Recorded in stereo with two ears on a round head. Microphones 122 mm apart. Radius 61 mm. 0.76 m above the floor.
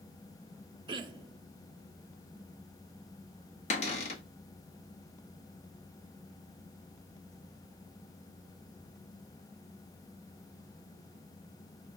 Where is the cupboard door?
50° left (ahead or behind), 0.9 m.